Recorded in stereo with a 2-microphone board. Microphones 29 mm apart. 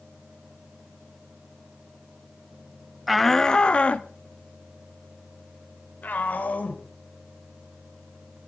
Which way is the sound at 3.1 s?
5° right (ahead or behind).